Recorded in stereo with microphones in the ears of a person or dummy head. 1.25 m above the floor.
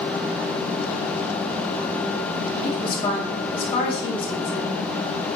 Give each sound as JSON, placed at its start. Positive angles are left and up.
{"t": 2.6, "sound": "a woman speaking", "side_deg": 30, "distance_m": 2.5}